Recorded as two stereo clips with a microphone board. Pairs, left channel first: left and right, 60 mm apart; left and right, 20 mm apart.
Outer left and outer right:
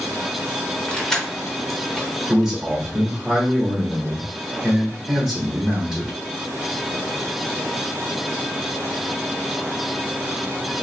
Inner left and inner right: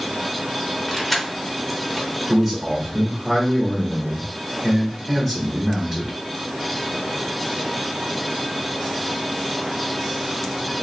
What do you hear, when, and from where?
0.9 s keys jangling: 10° left (ahead or behind), 0.6 m
2.3 s a man speaking: 10° right (ahead or behind), 1.2 m